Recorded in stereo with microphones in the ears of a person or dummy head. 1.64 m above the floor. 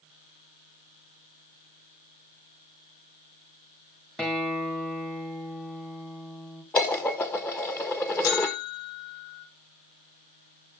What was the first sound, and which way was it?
A guitar, 5° left (ahead or behind).